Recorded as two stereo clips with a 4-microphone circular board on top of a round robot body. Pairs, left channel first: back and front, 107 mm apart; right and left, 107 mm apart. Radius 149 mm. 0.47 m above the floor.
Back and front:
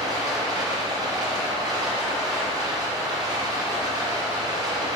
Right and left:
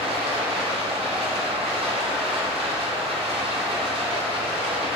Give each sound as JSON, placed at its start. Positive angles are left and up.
{"t": 0.0, "sound": "running water", "azimuth_deg": 55, "distance_m": 1.9}